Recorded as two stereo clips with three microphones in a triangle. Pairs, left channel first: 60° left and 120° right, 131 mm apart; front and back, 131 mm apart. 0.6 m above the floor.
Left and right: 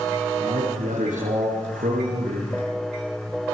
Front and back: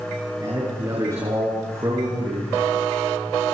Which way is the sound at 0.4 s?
115° right.